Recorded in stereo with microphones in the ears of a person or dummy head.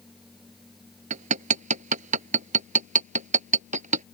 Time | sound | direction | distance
0.0 | a machine running | centre (ahead or behind) | ?
1.1 | hammering | 45° right (ahead or behind) | ?